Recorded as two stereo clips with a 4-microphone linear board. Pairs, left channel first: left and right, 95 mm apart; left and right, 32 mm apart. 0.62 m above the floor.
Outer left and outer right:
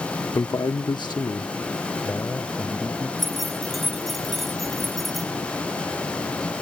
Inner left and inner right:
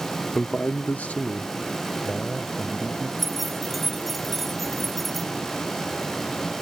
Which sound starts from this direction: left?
A man speaking, at 0.3 s.